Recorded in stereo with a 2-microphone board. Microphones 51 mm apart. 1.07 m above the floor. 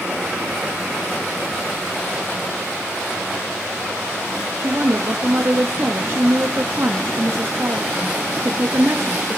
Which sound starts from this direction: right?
A woman speaking, at 4.6 s.